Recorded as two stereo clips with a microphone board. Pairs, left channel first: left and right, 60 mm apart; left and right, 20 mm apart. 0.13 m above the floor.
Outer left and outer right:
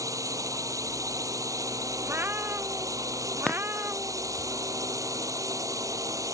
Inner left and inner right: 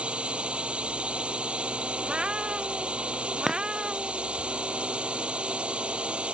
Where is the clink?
15° left (ahead or behind).